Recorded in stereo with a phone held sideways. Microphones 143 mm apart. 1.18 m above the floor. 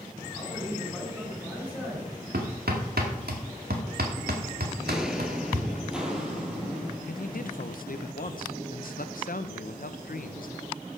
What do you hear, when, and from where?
0.3 s a man speaking: 10° right (ahead or behind), 7.5 m
2.3 s hammering: 85° right, 2 m
4.8 s footsteps: centre (ahead or behind), 1.2 m; by 7.0 s 5° right (ahead or behind), 3 m
7.1 s a man speaking: 65° left (ahead or behind), 0.7 m